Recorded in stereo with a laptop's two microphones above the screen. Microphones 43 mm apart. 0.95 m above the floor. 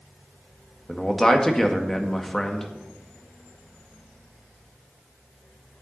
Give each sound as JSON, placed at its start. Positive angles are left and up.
{"t": 0.9, "sound": "a man speaking", "side_deg": 10, "distance_m": 1.7}